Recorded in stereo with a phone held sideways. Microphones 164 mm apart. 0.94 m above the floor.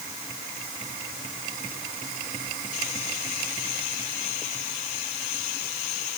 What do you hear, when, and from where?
Only background noise.